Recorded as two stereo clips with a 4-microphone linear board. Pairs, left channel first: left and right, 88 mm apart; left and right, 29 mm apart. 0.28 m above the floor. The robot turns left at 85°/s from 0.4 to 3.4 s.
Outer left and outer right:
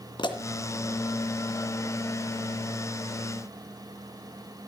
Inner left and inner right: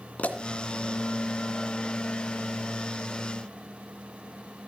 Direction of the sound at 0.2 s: 55° left (ahead or behind).